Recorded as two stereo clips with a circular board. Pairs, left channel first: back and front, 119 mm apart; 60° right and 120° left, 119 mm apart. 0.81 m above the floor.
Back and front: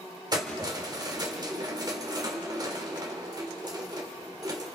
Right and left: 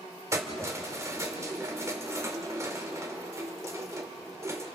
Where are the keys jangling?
55° left, 1.6 m.